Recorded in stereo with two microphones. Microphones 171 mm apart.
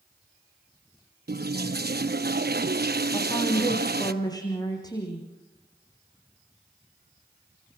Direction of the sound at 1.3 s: 70° right (ahead or behind).